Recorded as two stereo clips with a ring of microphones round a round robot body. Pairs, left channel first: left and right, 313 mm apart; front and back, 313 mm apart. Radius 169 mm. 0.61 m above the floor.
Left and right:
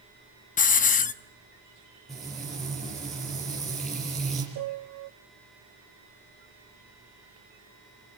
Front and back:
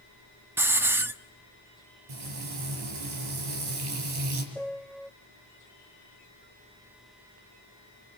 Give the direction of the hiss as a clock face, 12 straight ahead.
8 o'clock.